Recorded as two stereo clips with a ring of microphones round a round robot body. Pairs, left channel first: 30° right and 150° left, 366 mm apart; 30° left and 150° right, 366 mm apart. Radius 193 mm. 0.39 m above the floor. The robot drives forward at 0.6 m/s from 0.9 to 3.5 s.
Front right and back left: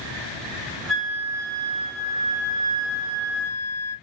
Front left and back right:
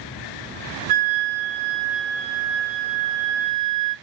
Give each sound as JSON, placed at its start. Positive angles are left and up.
{"t": 0.9, "sound": "a flute", "azimuth_deg": -120, "distance_m": 1.7}